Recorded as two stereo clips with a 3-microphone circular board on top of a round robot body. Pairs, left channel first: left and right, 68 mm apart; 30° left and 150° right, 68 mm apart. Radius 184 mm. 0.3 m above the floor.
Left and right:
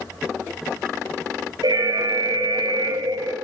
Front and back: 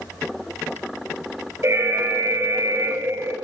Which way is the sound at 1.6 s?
105° right.